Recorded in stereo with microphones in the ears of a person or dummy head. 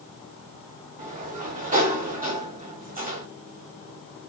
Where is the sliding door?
40° right (ahead or behind), 3.5 m.